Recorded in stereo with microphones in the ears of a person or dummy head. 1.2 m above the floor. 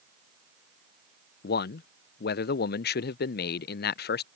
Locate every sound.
1.4 s a man speaking: 45° left (ahead or behind)